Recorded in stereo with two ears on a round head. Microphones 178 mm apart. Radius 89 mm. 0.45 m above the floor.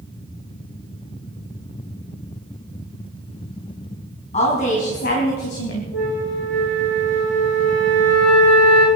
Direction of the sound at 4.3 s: 35° left (ahead or behind).